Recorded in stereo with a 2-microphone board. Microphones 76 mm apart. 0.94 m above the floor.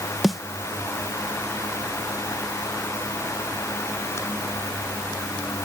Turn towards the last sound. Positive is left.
turn(degrees=0)  # may be behind; listen again after turning